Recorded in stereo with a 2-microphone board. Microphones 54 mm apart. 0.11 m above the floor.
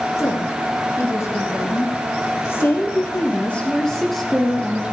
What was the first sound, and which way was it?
A woman speaking, 65° left (ahead or behind).